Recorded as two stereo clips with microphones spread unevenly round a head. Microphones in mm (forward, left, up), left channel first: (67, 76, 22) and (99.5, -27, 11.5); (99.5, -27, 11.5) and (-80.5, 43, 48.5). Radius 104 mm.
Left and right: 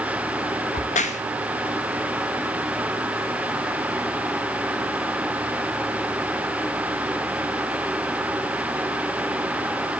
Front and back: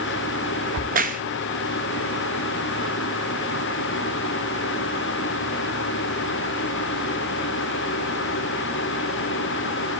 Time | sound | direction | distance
0.7 | a crack | 110° left | 1.5 m